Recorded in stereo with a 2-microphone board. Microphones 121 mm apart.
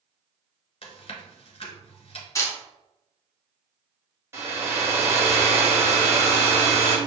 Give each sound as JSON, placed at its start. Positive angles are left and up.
{"t": 0.8, "sound": "chewing", "side_deg": 50, "distance_m": 1.2}
{"t": 2.4, "sound": "a camera shutter", "side_deg": 25, "distance_m": 1.1}
{"t": 4.3, "sound": "a hair dryer", "side_deg": -20, "distance_m": 1.3}